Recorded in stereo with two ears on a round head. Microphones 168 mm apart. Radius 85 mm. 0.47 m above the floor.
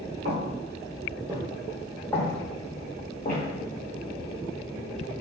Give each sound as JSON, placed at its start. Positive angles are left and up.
{"t": 0.2, "sound": "footsteps", "side_deg": -60, "distance_m": 1.4}